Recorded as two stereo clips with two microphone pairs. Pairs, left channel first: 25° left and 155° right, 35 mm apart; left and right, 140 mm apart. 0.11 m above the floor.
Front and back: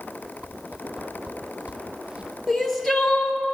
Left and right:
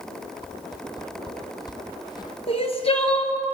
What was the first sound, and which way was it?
A whoosh, 145° left.